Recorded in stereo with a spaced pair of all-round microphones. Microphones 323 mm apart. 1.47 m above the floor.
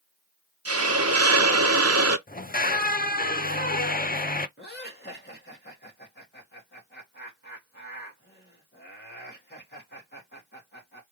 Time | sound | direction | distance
0.7 | a hiss | 45° right (ahead or behind) | 1.0 m
2.3 | a squeak | 25° left (ahead or behind) | 0.5 m
4.6 | laughter | 30° left (ahead or behind) | 2.5 m